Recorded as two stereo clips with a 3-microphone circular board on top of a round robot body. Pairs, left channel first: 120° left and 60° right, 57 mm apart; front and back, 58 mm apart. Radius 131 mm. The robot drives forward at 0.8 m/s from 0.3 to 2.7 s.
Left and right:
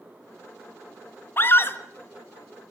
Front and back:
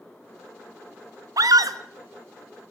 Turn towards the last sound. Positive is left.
turn(degrees=175)